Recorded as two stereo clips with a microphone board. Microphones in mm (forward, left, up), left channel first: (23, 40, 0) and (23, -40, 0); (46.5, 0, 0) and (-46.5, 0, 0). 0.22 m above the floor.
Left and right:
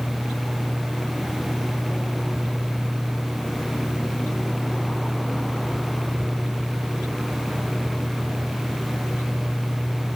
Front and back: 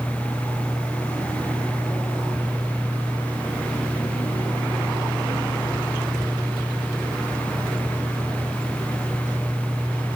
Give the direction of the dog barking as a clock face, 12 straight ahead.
I don't hear a dog barking.